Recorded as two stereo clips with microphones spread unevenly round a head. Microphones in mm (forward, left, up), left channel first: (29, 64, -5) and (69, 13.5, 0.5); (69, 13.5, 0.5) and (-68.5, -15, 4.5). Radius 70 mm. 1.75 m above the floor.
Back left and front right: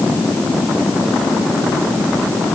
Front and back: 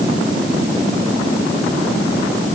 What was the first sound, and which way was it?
Only background noise.